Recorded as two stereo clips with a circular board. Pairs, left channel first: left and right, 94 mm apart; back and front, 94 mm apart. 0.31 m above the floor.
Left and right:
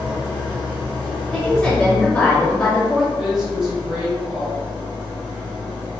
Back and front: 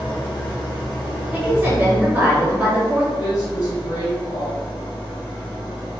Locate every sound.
0.0 s an engine running: 165° left, 1.8 m
1.3 s a woman speaking: 30° left, 1.0 m
3.2 s a woman speaking: 175° right, 1.9 m